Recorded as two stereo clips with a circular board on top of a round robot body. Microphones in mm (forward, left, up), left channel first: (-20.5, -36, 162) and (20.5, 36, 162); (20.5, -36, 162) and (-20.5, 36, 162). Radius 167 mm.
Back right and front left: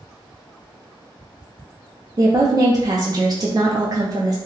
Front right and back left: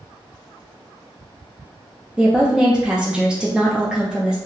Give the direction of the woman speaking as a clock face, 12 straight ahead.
11 o'clock.